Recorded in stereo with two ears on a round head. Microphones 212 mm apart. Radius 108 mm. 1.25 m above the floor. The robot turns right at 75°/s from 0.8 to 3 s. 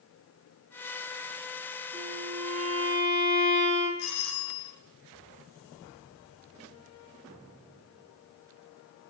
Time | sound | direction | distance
1.9 | a violin | 55° right | 7.5 m
4.0 | a doorbell | 75° left (ahead or behind) | 8.5 m